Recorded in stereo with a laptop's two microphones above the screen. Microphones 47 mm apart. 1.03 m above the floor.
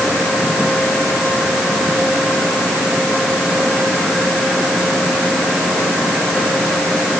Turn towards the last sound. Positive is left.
No sound to turn to.